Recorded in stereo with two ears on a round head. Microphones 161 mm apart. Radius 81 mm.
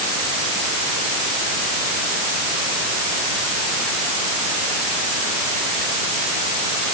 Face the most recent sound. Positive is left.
No sound to turn to.